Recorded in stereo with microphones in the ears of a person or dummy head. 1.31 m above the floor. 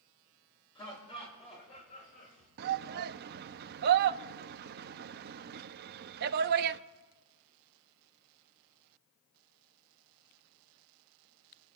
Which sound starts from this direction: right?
A shout, at 2.6 s.